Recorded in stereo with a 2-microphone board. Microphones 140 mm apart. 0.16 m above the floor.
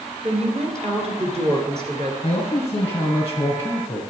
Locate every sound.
0.2 s a woman speaking: 50° right (ahead or behind), 2.5 m
2.2 s a man speaking: 25° left (ahead or behind), 1.9 m